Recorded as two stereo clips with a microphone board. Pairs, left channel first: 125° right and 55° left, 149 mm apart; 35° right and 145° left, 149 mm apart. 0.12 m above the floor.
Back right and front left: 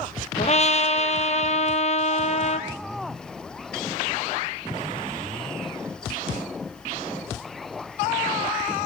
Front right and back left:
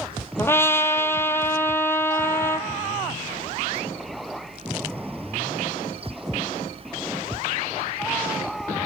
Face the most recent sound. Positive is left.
turn(degrees=-105)